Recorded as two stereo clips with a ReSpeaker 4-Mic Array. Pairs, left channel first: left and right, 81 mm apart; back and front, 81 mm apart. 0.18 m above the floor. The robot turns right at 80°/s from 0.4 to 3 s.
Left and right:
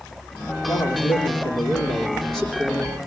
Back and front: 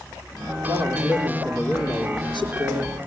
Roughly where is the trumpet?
No trumpet in this recording.